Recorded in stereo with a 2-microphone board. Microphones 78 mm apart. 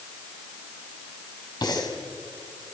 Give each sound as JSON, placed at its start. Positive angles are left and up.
{"t": 1.6, "sound": "breathing", "side_deg": 55, "distance_m": 4.0}